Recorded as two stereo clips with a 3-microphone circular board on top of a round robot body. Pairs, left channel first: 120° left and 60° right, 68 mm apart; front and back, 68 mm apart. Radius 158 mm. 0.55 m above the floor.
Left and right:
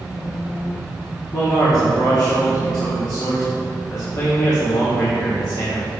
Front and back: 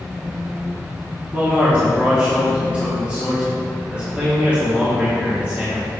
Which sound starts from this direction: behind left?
A man speaking, at 1.3 s.